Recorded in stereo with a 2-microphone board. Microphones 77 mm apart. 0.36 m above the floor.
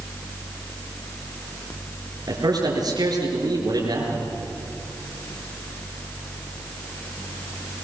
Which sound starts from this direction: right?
A man speaking, at 2.3 s.